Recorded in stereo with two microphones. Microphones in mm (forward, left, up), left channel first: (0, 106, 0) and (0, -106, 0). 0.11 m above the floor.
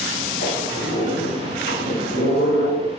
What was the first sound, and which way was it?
A squeak, 50° left (ahead or behind).